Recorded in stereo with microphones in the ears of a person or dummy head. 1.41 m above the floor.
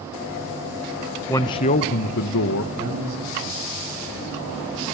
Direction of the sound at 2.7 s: 90° right.